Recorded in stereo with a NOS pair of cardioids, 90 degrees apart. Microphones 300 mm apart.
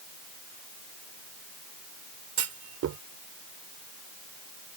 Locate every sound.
2.4 s a clunk: 65° right